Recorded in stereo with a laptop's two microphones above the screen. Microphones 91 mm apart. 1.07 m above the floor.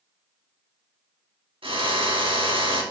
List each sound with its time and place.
1.6 s a drill: 80° right, 2 m